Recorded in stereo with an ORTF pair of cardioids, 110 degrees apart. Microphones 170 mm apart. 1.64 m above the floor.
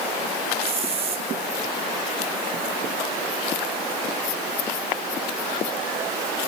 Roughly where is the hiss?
Ahead right.